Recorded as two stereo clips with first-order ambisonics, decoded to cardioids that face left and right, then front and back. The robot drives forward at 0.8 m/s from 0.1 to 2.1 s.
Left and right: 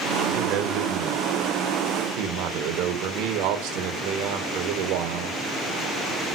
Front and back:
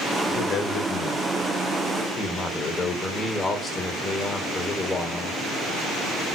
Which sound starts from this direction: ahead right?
A man speaking, at 0.3 s.